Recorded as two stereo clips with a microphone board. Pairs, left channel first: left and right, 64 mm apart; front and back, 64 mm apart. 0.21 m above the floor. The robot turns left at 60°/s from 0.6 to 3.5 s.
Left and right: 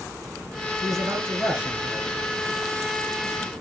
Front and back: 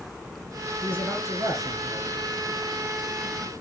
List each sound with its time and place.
0.8 s a man speaking: 115° right, 2.5 m; by 2.1 s 165° left, 2.5 m